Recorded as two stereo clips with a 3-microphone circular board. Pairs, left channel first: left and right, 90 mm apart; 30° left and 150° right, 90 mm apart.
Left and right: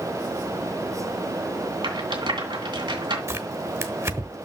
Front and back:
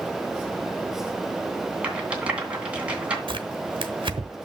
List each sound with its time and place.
1.8 s a rattle: 75° right, 2.5 m
3.3 s tearing paper: 145° right, 1.0 m